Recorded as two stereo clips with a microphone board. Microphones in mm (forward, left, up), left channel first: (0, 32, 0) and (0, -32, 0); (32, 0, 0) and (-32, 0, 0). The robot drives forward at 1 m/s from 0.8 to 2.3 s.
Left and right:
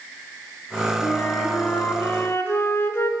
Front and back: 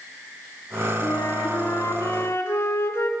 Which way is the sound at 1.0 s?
30° left.